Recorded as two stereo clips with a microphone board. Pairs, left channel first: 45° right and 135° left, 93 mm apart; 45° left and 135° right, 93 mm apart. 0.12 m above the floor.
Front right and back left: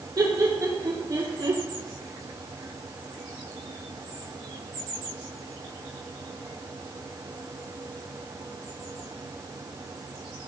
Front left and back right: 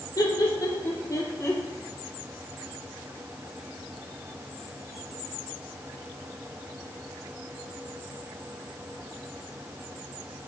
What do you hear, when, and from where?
0.2 s laughter: 95° left, 5 m; by 1.6 s 105° left, 4.5 m